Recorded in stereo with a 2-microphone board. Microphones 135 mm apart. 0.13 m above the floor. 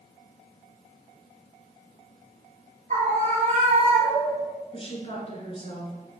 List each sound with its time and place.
2.9 s a scream: 60° right (ahead or behind), 2 m; by 4.5 s 55° right (ahead or behind), 2.5 m
4.7 s a woman speaking: 40° left (ahead or behind), 1.7 m